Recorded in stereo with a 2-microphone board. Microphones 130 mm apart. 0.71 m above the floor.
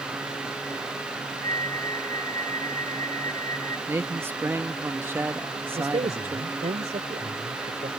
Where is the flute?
25° left (ahead or behind).